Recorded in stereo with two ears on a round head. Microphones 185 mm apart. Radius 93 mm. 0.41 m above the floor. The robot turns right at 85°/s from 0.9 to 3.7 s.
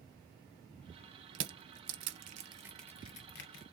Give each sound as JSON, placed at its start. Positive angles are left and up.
{"t": 1.4, "sound": "crushing", "side_deg": -60, "distance_m": 0.6}